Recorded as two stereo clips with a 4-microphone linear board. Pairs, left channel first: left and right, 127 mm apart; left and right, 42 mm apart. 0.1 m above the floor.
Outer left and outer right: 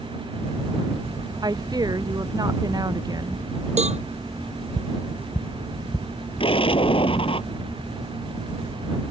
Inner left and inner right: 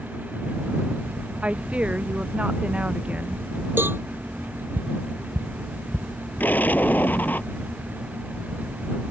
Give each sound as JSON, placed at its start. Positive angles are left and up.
{"t": 1.4, "sound": "a woman speaking", "side_deg": -30}
{"t": 3.8, "sound": "a cowbell", "side_deg": -65}
{"t": 6.4, "sound": "an explosion", "side_deg": 50}